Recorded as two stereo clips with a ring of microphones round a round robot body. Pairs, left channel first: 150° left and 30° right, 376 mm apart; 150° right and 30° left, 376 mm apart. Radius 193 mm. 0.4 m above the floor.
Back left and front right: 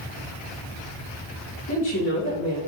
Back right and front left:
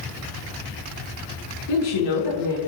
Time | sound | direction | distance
1.7 | a woman speaking | 155° right | 4 m